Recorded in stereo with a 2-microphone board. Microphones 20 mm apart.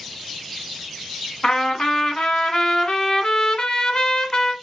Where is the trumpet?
40° left (ahead or behind), 1.0 m.